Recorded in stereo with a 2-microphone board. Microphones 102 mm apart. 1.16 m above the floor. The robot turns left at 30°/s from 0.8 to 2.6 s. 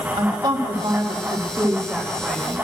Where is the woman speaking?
130° right, 1.8 m; by 2.5 s 175° left, 1.8 m.